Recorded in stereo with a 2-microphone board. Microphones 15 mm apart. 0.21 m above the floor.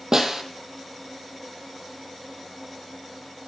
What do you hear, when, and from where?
0.1 s a snare drum: 35° right (ahead or behind), 1.7 m